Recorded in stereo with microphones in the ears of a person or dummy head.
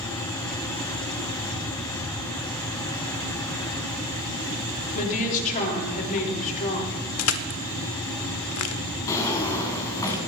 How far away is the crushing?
About 0.9 m.